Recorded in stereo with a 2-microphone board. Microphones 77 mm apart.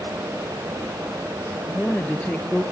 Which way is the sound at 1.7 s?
15° left (ahead or behind).